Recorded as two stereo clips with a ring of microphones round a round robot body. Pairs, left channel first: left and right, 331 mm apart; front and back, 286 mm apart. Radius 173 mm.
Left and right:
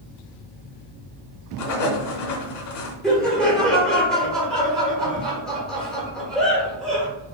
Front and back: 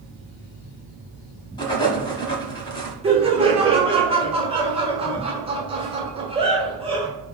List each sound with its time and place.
1.6 s writing: 75° left, 1.3 m
3.0 s laughter: 175° left, 1.5 m